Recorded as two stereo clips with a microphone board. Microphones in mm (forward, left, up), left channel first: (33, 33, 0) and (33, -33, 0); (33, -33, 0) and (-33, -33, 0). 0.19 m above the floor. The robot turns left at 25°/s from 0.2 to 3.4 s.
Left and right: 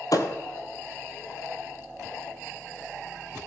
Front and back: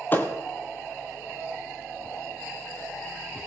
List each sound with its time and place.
0.1 s a thud: 60° left, 1.0 m; by 0.3 s 55° left, 1.0 m